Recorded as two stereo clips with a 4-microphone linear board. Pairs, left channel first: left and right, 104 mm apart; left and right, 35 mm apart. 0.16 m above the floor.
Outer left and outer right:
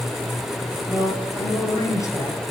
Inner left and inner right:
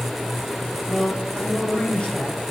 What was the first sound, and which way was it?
A man speaking, 30° left (ahead or behind).